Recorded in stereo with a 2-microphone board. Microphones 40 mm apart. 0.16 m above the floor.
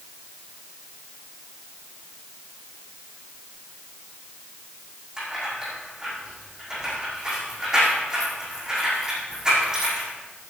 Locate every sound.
5.2 s keys jangling: 15° right (ahead or behind), 6 m